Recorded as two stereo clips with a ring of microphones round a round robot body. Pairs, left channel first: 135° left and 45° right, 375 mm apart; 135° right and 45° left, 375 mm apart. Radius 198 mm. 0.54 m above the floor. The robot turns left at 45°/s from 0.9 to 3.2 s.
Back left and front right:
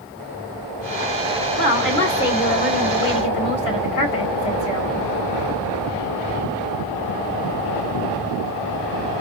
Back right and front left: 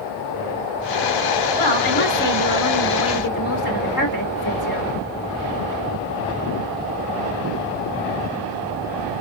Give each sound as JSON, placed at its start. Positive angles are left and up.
{"t": 1.6, "sound": "a woman speaking", "azimuth_deg": -120, "distance_m": 2.5}